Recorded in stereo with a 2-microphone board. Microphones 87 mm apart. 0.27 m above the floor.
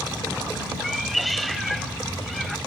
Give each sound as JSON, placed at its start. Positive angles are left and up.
{"t": 0.8, "sound": "a cat meowing", "side_deg": 0}